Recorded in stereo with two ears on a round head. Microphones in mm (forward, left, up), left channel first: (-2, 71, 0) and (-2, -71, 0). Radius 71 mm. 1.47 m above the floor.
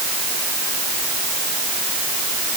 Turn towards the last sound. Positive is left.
No sound to turn to.